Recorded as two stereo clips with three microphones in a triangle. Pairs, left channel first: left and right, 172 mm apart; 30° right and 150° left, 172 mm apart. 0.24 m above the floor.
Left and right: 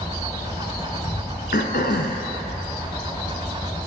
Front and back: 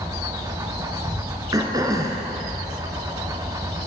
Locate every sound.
0.0 s an insect: 140° left, 1.0 m
1.5 s throat clearing: 85° left, 0.7 m